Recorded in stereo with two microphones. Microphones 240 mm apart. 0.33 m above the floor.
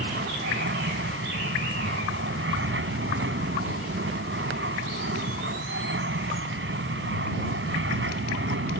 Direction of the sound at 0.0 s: 55° right (ahead or behind).